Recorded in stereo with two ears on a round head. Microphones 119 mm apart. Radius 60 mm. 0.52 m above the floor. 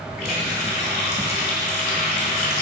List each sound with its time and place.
0.2 s a running tap: 75° left (ahead or behind), 2.5 m